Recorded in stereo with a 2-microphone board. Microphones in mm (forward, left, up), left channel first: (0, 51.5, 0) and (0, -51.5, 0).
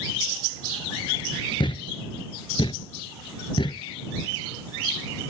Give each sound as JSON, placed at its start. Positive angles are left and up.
{"t": 1.6, "sound": "a thud", "side_deg": 55}